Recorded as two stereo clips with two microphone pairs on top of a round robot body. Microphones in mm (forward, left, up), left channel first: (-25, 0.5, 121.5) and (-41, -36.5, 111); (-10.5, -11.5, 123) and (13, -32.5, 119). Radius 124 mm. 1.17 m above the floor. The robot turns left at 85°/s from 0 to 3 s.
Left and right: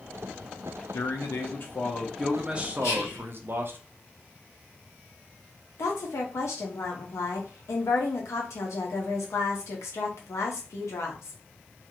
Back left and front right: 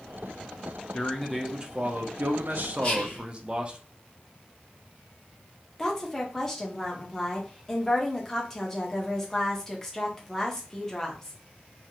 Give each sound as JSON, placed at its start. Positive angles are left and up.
{"t": 0.9, "sound": "a man speaking", "azimuth_deg": 80, "distance_m": 0.6}
{"t": 2.8, "sound": "whispering", "azimuth_deg": 80, "distance_m": 1.3}
{"t": 5.8, "sound": "a woman speaking", "azimuth_deg": 55, "distance_m": 0.7}